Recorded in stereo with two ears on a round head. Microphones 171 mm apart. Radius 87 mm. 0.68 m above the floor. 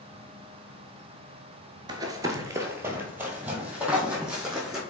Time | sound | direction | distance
1.9 | running footsteps | 20° right (ahead or behind) | 0.6 m